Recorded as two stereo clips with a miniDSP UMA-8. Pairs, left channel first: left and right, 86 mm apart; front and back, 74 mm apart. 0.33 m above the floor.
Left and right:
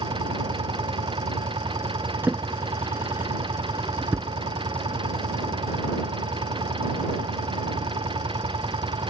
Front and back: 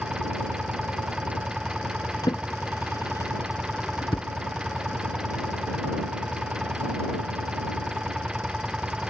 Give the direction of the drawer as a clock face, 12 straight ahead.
1 o'clock.